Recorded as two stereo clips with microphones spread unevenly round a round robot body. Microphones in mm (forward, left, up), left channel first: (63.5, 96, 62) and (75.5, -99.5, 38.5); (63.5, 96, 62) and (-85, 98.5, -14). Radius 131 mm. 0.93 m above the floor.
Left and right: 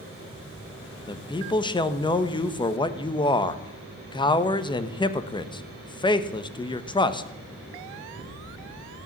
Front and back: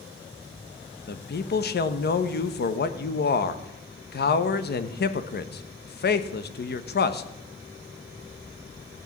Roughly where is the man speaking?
Ahead left.